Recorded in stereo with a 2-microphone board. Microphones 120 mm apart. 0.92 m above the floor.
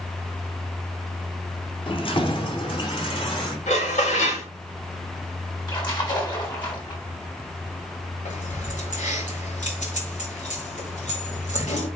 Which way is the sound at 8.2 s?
85° left.